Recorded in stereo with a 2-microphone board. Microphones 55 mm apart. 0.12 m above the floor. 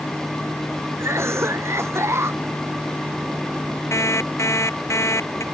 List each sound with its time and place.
1.0 s a cough: 45° right (ahead or behind)
3.9 s an alarm clock: 50° left (ahead or behind)